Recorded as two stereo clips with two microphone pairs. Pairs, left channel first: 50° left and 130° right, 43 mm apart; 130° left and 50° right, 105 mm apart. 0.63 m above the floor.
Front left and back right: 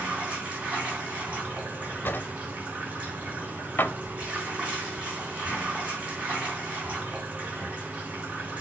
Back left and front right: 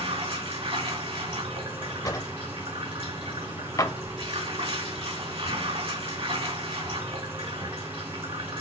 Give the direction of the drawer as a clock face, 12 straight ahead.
9 o'clock.